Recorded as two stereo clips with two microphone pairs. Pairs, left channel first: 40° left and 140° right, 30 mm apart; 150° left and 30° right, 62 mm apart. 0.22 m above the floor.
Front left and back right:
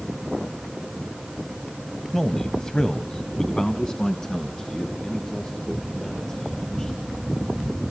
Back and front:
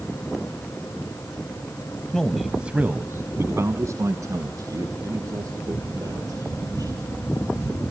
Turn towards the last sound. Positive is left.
turn(degrees=-30)